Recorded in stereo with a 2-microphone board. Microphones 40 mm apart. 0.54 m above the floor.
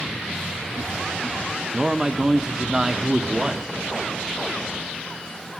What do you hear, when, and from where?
1.7 s a man speaking: 20° right (ahead or behind), 0.7 m